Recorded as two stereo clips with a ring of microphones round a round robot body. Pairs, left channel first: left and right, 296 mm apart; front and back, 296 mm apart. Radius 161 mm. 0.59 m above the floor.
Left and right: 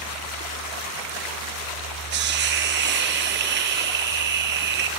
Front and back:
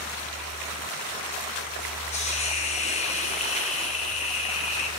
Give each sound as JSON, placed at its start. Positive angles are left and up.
{"t": 2.1, "sound": "a hiss", "azimuth_deg": -60, "distance_m": 0.6}